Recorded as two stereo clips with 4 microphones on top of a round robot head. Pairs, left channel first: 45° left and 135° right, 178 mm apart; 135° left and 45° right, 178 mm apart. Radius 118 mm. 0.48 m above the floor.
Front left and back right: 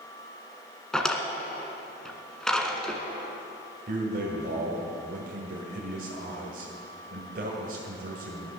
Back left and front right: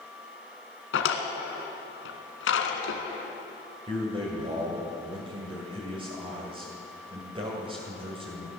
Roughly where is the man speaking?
Right.